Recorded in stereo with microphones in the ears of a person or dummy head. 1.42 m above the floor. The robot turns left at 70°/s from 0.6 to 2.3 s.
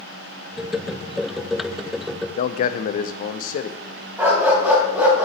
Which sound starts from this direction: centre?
A dog barking, at 4.2 s.